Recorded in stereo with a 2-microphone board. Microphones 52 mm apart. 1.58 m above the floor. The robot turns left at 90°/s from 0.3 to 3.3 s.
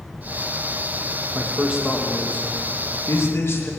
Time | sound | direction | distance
1.4 | a man speaking | 130° right | 2.5 m